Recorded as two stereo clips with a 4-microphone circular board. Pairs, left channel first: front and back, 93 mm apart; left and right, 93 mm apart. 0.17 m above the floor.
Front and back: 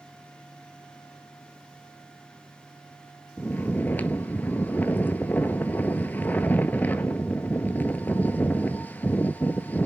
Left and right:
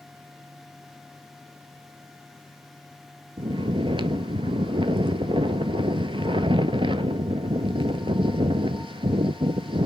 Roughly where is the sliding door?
No sliding door in this recording.